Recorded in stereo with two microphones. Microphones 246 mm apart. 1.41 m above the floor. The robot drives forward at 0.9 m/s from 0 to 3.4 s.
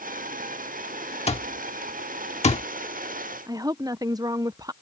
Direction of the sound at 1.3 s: 25° left (ahead or behind).